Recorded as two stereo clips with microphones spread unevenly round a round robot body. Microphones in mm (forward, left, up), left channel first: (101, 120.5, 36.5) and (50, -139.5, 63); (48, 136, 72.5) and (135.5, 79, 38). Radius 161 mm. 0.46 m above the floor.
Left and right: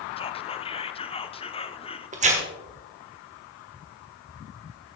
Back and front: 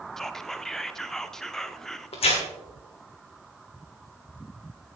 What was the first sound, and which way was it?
Whispering, 35° left.